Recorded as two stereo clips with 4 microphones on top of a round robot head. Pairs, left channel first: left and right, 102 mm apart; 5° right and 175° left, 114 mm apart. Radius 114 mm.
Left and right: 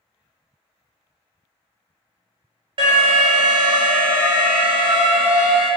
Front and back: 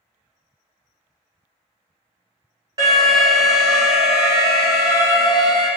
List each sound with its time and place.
2.8 s an alarm: 125° right, 1.1 m